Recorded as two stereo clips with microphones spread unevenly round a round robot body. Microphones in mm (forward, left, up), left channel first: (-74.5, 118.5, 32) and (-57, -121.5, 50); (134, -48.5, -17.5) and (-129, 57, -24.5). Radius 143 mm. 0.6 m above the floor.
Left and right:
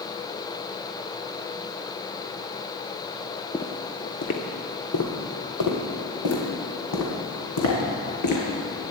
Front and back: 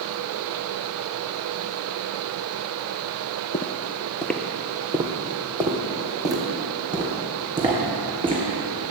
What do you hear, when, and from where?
3.5 s footsteps: 5° left, 0.6 m; by 8.4 s 85° left, 3 m